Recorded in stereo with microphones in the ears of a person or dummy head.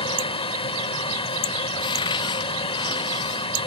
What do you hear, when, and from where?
0.0 s a fan: 30° left (ahead or behind)
1.7 s a cupboard door: 25° left (ahead or behind)